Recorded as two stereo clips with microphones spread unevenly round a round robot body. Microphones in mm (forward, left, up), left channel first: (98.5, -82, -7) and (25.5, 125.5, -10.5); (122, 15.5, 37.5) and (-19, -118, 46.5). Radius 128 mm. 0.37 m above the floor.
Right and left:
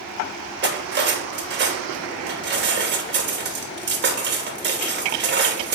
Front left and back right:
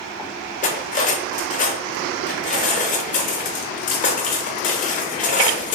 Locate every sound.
0.6 s cutlery clinking: 85° left, 0.6 m